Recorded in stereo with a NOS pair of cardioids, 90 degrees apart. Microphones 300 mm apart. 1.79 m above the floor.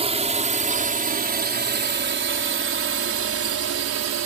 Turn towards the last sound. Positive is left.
turn(degrees=-60)